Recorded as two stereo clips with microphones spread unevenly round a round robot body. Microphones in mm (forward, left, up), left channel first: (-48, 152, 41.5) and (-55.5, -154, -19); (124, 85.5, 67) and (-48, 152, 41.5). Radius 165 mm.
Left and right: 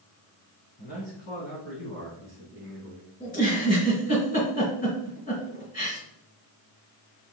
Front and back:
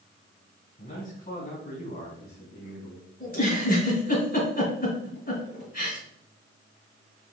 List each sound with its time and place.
0.8 s a man speaking: 25° left, 3.5 m; by 3.1 s 5° left, 3 m
3.2 s a giggle: 15° left, 4.5 m